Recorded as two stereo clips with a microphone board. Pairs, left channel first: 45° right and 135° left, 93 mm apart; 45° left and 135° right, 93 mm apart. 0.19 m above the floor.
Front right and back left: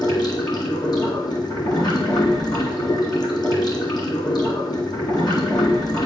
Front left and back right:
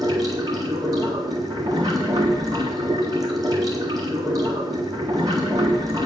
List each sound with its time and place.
0.0 s running water: 85° right, 1.7 m